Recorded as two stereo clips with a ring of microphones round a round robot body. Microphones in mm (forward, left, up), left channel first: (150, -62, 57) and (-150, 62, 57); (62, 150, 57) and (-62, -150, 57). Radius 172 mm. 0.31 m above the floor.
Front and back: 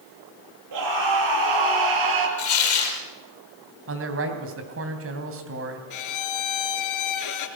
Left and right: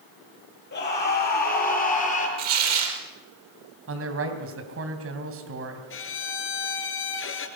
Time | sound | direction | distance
0.7 | a scream | 125° left | 8.5 m
2.4 | tearing paper | 70° right | 5 m
3.9 | a man speaking | 155° right | 3 m
5.9 | a violin | 15° left | 2 m